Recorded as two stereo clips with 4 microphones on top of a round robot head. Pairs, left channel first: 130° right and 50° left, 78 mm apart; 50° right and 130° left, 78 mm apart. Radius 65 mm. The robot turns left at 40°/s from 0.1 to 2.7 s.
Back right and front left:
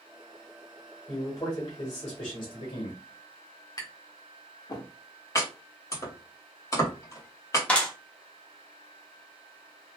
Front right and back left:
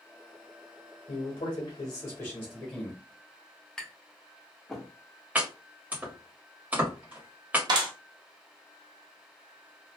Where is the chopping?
165° right, 1.5 m.